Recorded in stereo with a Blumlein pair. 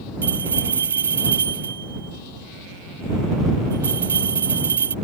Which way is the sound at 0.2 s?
70° right.